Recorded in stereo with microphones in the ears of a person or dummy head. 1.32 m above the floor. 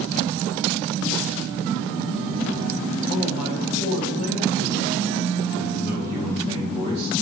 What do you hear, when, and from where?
3.1 s a man speaking: 85° left, 2.5 m; by 7.1 s 25° left (ahead or behind), 1.6 m